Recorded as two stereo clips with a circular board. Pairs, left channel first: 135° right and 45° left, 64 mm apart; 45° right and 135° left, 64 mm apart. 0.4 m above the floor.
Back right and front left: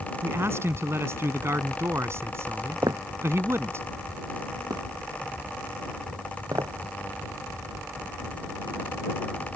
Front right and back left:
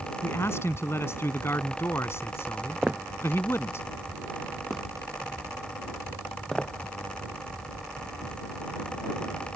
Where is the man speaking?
Straight ahead.